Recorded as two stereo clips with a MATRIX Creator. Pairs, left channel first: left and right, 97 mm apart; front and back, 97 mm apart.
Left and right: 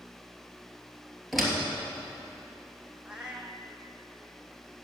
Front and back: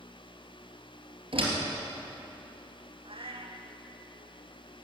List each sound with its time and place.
1.3 s a door slam: straight behind, 3 m
3.0 s a cat meowing: 170° right, 1.4 m